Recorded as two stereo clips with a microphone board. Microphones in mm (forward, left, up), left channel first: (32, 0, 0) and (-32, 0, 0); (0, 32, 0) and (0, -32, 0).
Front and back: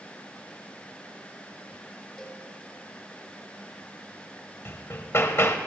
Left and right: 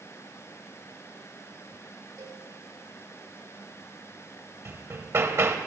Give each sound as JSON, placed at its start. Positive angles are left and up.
{"t": 2.2, "sound": "a cowbell", "azimuth_deg": -85, "distance_m": 3.0}
{"t": 4.7, "sound": "hammering", "azimuth_deg": -45, "distance_m": 1.3}